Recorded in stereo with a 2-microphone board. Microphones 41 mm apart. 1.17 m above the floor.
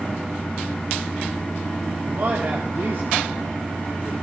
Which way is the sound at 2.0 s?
70° right (ahead or behind).